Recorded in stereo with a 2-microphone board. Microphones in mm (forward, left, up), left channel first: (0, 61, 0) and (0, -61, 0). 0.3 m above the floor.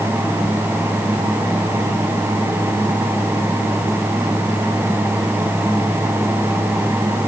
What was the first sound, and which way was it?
Only background noise.